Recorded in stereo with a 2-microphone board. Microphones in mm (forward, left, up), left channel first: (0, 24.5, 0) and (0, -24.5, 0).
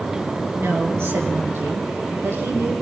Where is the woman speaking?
60° right (ahead or behind), 6 m; by 2.7 s 65° right (ahead or behind), 9 m.